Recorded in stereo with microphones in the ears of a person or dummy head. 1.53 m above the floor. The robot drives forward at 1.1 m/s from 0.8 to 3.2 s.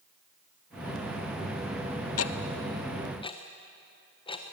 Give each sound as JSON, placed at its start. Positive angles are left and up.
{"t": 2.2, "sound": "ticking", "side_deg": 85, "distance_m": 0.7}